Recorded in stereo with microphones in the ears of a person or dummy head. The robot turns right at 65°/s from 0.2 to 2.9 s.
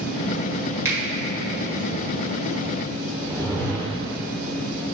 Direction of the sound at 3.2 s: 10° right (ahead or behind).